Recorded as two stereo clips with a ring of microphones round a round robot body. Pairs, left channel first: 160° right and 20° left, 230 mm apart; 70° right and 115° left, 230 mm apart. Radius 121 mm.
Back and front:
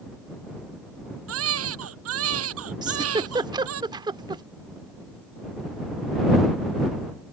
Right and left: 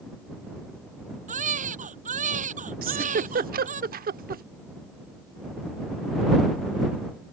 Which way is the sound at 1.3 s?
55° left.